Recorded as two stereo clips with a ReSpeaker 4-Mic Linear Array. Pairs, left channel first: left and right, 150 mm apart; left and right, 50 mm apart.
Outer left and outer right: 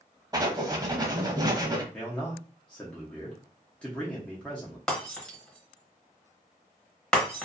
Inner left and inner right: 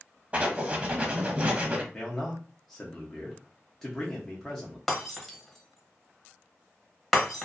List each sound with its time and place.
0.3 s writing: 25° right (ahead or behind), 0.6 m
1.9 s a man speaking: 5° left (ahead or behind), 0.7 m
4.9 s breaking glass: 5° left (ahead or behind), 1.0 m